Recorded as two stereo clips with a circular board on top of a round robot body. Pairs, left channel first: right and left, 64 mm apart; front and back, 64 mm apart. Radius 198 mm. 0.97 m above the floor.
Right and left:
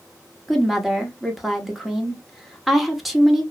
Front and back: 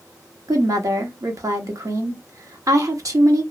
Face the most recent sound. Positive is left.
turn(degrees=180)